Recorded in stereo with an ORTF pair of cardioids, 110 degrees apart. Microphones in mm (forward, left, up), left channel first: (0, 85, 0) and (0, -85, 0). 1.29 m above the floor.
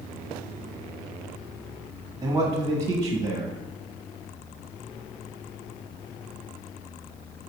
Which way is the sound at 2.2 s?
20° right.